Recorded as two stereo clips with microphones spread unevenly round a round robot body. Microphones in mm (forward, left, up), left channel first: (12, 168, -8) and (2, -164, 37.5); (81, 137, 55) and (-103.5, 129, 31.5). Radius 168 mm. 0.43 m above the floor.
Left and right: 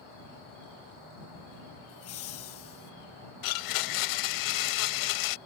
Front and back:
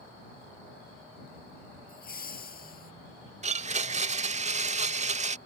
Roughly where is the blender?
Behind left.